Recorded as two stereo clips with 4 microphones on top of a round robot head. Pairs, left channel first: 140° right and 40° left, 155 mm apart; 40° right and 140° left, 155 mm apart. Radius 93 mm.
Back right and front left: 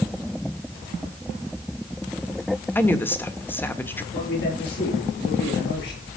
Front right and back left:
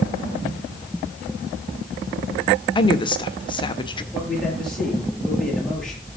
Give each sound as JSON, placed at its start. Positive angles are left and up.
{"t": 2.8, "sound": "a woman speaking", "azimuth_deg": -70, "distance_m": 1.5}
{"t": 4.1, "sound": "a man speaking", "azimuth_deg": -125, "distance_m": 8.0}